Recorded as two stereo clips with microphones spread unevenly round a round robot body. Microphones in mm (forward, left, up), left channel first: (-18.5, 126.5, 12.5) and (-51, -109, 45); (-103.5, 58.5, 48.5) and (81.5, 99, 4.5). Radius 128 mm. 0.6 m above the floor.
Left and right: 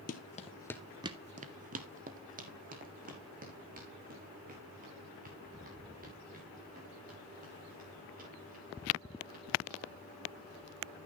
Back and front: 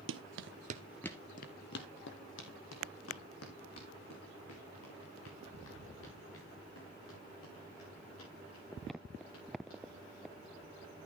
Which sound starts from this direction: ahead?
Running footsteps, at 0.1 s.